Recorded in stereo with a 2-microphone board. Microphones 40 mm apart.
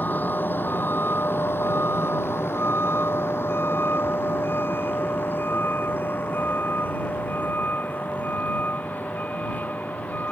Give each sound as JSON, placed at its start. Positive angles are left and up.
{"t": 0.0, "sound": "a vehicle", "side_deg": 50}